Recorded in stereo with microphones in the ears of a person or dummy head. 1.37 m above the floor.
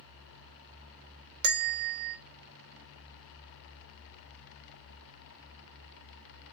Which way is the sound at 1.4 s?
60° right (ahead or behind).